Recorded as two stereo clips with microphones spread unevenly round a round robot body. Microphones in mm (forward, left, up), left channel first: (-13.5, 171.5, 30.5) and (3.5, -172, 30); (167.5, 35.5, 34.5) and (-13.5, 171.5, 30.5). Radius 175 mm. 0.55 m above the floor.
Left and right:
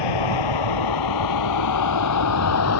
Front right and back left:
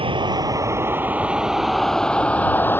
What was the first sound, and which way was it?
A vehicle, 75° left.